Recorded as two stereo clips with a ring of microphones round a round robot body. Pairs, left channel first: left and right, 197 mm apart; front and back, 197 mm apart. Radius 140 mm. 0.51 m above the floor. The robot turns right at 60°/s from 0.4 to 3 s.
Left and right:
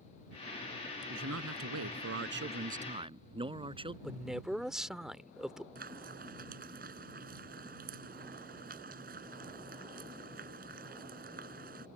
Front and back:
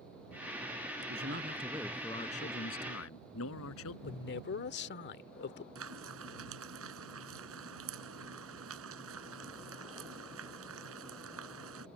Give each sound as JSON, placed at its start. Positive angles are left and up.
{"t": 1.1, "sound": "a man speaking", "azimuth_deg": -140}
{"t": 4.0, "sound": "a man speaking", "azimuth_deg": -5}
{"t": 5.8, "sound": "frying", "azimuth_deg": -150}